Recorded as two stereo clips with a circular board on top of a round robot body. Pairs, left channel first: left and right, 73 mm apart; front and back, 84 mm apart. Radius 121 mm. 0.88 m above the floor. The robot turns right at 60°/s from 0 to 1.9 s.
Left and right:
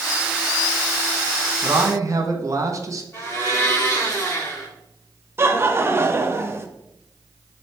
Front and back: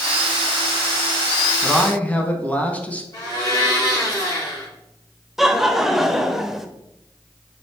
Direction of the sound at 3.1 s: 40° left.